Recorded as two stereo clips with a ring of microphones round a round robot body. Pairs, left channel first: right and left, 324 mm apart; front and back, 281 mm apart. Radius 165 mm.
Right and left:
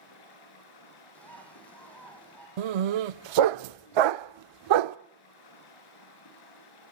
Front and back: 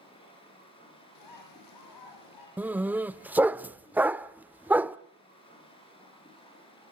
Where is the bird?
5° right, 6.5 m.